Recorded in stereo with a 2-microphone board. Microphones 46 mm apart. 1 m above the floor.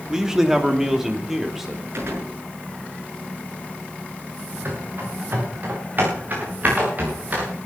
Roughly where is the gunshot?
Right.